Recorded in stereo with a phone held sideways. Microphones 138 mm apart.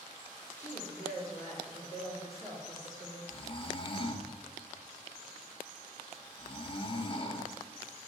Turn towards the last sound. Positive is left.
turn(degrees=35)  # may be behind; listen again after turning